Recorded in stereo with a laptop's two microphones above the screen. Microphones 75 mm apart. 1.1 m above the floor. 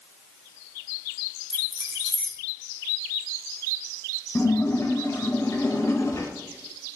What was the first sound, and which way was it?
Keys jangling, 70° left (ahead or behind).